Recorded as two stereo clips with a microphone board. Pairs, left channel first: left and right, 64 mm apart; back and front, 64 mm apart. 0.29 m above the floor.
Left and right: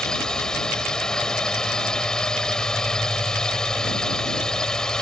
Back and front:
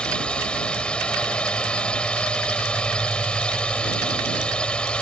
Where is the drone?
145° left.